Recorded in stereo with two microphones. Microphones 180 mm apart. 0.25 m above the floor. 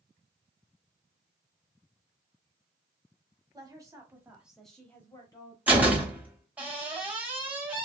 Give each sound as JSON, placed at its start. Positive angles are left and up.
{"t": 3.5, "sound": "a woman speaking", "side_deg": -20, "distance_m": 1.3}
{"t": 5.7, "sound": "a door slam", "side_deg": -10, "distance_m": 0.9}